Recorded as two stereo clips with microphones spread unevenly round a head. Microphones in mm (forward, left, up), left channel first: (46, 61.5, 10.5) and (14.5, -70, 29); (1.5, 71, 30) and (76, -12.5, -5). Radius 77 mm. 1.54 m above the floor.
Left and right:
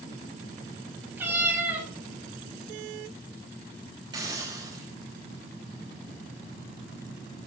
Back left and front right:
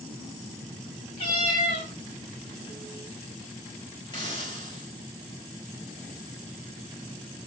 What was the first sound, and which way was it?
A cat meowing, straight behind.